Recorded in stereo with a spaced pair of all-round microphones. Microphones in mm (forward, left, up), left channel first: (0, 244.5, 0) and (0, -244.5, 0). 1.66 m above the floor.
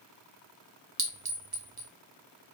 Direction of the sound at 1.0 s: 45° right (ahead or behind).